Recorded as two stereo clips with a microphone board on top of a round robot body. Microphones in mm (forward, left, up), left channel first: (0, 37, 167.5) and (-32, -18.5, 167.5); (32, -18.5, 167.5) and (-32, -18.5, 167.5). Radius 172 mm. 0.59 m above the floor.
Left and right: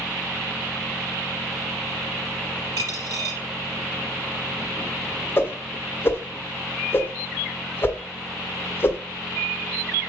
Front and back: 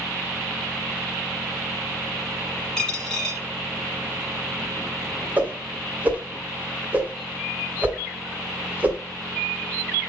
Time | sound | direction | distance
2.8 | a dropped coin | 80° right | 4 m
5.4 | a whoosh | 115° left | 1.3 m